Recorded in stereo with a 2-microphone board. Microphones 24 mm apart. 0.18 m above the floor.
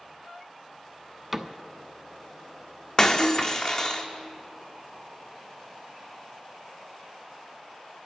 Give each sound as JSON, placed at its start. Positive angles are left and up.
{"t": 1.3, "sound": "a cupboard door", "side_deg": -10, "distance_m": 0.6}
{"t": 3.0, "sound": "breaking glass", "side_deg": 30, "distance_m": 0.8}